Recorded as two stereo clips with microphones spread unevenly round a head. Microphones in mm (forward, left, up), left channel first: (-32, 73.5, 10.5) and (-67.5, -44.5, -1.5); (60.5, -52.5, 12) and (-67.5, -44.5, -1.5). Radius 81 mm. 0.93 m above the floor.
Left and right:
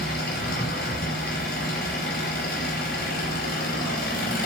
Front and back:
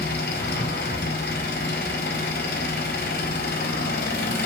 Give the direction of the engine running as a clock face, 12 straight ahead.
11 o'clock.